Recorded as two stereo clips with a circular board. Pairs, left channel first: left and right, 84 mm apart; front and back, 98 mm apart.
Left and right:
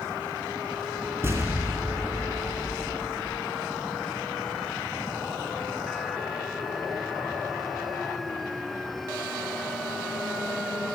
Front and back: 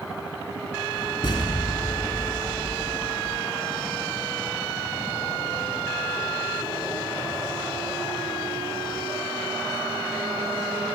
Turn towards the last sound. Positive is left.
turn(degrees=-30)